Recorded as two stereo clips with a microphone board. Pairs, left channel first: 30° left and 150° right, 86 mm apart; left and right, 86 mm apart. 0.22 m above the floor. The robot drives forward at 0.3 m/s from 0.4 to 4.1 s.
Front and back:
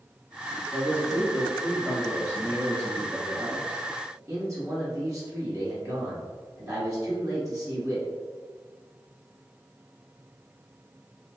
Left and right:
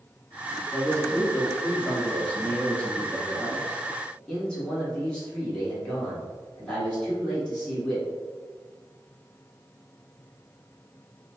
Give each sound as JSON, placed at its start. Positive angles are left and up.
{"t": 0.7, "sound": "a man speaking", "azimuth_deg": 145, "distance_m": 1.1}